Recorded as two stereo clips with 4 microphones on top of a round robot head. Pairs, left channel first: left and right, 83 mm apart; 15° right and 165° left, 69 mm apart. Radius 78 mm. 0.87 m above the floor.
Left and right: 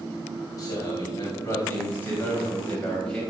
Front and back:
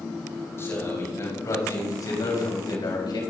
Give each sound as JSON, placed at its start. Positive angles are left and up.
{"t": 0.6, "sound": "a man speaking", "azimuth_deg": 40, "distance_m": 6.0}